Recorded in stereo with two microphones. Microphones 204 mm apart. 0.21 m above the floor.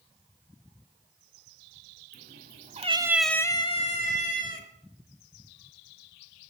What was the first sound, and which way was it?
A cat meowing, 55° right (ahead or behind).